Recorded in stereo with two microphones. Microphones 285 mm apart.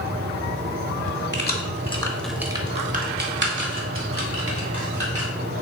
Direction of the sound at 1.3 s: 40° left (ahead or behind).